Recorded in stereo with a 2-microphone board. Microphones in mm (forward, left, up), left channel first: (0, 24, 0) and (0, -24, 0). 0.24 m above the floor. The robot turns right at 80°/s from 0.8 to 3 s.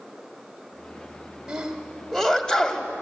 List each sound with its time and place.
1.5 s a sneeze: 15° right (ahead or behind), 1.1 m; by 2.9 s 20° left (ahead or behind), 1.1 m